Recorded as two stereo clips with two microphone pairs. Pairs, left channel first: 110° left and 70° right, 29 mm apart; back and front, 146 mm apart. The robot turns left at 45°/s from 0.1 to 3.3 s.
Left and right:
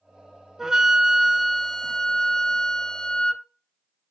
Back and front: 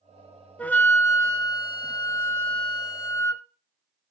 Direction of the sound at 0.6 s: 110° right.